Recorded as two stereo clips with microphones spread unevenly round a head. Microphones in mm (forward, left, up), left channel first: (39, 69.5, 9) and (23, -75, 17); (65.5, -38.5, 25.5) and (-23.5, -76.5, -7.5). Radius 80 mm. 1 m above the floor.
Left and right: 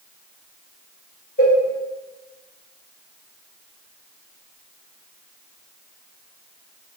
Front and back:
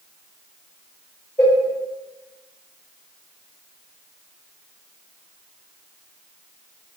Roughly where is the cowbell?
Left.